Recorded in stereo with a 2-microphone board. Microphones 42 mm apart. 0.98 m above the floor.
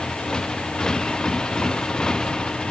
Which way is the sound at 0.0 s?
15° left (ahead or behind).